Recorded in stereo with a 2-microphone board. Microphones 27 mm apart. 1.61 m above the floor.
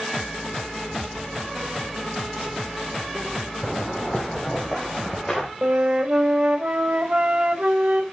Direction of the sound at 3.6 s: 10° left (ahead or behind).